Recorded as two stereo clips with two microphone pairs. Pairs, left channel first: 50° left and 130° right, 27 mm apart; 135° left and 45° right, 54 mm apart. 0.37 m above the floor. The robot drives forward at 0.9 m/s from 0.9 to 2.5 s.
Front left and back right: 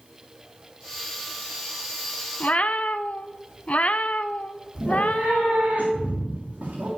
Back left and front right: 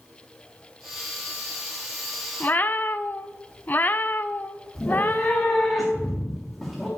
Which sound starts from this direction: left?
A cat meowing, at 2.4 s.